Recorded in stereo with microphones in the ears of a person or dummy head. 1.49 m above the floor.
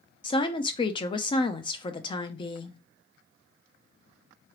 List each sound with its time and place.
0.2 s a woman speaking: 25° left (ahead or behind), 0.5 m